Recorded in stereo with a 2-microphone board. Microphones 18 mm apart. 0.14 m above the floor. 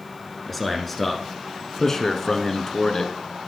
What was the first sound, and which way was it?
A man speaking, 5° left (ahead or behind).